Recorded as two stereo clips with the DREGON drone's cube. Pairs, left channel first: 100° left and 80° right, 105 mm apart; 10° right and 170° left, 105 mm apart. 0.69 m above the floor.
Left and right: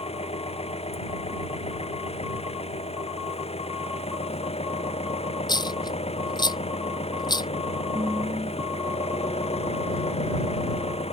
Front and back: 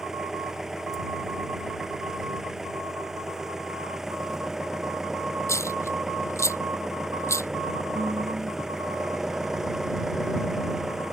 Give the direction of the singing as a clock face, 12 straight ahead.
4 o'clock.